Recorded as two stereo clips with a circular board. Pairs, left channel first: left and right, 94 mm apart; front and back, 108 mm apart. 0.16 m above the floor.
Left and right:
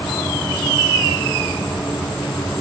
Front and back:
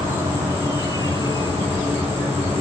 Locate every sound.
0.0 s an insect: 175° left, 6.5 m